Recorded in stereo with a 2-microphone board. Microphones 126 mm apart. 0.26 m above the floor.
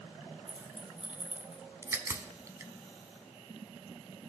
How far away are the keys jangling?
About 1.0 m.